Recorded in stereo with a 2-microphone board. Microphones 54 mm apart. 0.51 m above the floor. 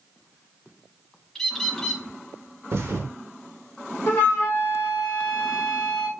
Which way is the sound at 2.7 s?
55° right (ahead or behind).